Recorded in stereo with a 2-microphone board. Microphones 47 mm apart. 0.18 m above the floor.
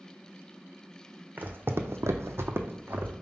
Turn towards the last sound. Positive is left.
turn(degrees=-40)  # may be behind; listen again after turning